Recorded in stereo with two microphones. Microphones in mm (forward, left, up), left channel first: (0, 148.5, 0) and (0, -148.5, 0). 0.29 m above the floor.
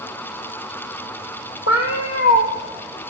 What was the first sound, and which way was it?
A cat meowing, 50° left (ahead or behind).